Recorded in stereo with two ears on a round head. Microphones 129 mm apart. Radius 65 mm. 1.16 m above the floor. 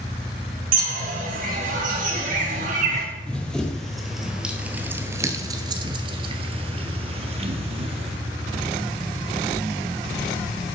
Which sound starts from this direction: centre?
Running footsteps, at 3.3 s.